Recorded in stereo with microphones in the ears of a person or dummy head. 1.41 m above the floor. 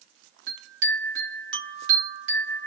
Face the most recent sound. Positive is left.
turn(degrees=-65)  # may be behind; listen again after turning